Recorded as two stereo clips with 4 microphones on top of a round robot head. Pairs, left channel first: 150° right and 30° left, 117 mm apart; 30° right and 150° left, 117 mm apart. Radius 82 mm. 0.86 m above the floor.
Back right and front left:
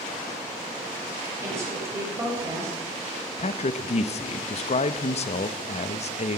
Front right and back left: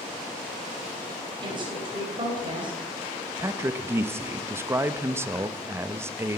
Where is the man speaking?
145° right, 0.8 m.